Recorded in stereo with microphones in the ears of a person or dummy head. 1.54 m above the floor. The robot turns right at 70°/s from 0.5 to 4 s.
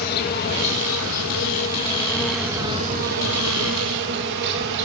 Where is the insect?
50° left, 2.5 m; by 4.9 s 65° right, 2.5 m.